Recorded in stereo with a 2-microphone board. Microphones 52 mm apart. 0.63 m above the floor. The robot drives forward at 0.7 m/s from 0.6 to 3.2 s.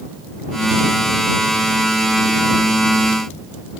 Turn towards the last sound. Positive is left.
No sound to turn to.